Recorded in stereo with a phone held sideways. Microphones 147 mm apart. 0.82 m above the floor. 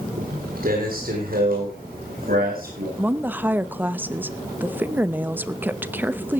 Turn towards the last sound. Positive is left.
turn(degrees=-15)  # may be behind; listen again after turning